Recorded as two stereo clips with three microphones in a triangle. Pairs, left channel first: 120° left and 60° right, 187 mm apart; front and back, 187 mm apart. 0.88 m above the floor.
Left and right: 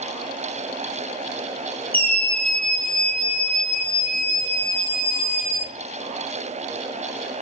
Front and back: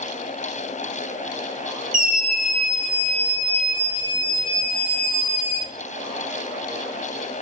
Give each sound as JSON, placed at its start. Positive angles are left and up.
{"t": 1.9, "sound": "a scream", "azimuth_deg": -160, "distance_m": 1.2}